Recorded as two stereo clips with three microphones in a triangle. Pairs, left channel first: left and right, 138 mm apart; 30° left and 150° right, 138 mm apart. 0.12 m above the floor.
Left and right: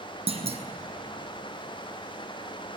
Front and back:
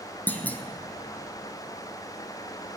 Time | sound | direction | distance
0.3 | a clunk | 50° right | 1.2 m